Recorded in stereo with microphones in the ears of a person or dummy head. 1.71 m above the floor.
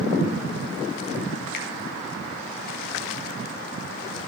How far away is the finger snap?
About 3 m.